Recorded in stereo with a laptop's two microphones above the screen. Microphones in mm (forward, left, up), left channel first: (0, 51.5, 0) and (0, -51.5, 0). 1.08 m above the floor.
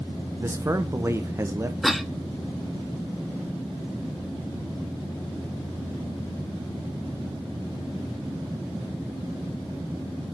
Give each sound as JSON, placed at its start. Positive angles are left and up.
{"t": 0.4, "sound": "a man speaking", "side_deg": -25, "distance_m": 0.6}
{"t": 1.8, "sound": "a cough", "side_deg": 0, "distance_m": 0.5}